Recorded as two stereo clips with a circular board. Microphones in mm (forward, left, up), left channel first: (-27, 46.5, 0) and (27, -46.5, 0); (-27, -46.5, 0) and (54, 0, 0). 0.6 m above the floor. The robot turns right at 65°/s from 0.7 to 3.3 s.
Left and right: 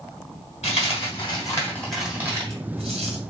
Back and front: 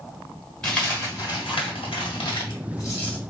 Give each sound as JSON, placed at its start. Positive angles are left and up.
{"t": 0.6, "sound": "a dropped coin", "azimuth_deg": 130, "distance_m": 1.8}